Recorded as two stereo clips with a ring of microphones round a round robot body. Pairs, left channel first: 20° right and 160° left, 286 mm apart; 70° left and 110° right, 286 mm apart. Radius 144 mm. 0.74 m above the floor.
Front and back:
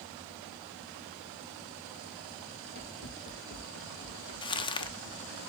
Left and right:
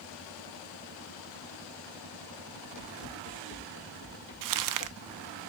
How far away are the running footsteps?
About 2.5 m.